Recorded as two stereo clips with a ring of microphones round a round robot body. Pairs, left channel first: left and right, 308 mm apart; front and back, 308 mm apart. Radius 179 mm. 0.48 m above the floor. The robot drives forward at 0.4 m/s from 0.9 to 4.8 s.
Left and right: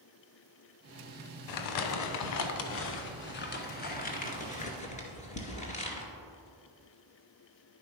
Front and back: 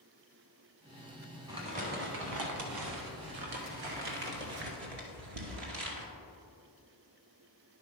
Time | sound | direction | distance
1.5 | crumpling | 100° left | 0.6 m